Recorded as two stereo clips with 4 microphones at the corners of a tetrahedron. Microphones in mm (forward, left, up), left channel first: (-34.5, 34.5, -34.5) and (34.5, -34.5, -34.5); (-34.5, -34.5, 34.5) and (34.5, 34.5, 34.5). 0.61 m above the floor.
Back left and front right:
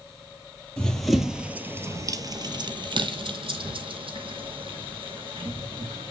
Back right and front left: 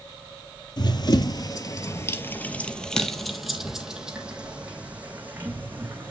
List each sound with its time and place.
0.8 s running footsteps: 145° right, 1.0 m; by 6.1 s 25° right, 2.5 m